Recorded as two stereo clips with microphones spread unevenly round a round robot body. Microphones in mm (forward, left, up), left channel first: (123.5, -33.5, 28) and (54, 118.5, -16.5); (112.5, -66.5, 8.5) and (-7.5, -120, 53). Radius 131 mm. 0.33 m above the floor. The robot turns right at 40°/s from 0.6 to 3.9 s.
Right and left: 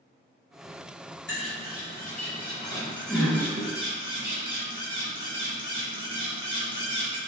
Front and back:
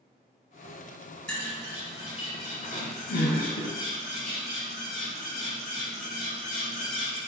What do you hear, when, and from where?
1.3 s a bird: 50° right, 1.3 m; by 7.2 s 55° left, 1.3 m